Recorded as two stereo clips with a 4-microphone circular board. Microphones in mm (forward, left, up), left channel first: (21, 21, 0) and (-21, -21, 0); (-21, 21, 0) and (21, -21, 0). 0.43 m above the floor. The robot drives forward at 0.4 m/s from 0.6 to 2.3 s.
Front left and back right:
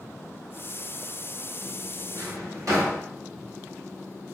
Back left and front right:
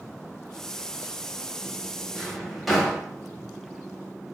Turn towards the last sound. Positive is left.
turn(degrees=-135)